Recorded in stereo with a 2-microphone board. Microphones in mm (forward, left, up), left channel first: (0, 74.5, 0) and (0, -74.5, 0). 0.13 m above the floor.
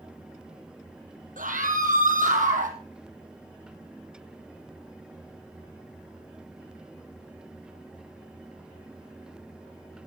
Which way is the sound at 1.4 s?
65° right (ahead or behind).